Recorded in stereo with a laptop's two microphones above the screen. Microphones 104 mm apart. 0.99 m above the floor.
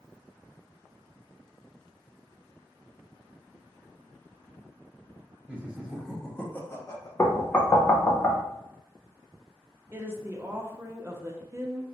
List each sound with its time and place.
5.5 s laughter: 15° right (ahead or behind), 1.2 m; by 7.1 s 35° left (ahead or behind), 0.8 m
7.2 s knocking: 20° left (ahead or behind), 0.5 m
9.9 s a woman speaking: 25° right (ahead or behind), 0.5 m